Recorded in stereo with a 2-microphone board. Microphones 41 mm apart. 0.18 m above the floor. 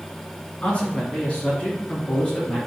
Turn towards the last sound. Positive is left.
turn(degrees=25)  # may be behind; listen again after turning